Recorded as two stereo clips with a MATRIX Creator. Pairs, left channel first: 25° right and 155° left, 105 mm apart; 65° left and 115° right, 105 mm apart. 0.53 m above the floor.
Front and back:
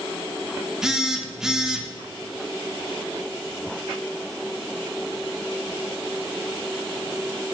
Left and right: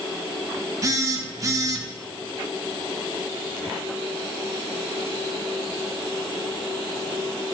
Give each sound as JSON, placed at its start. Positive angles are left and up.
{"t": 0.8, "sound": "a phone buzzing", "azimuth_deg": -125, "distance_m": 0.6}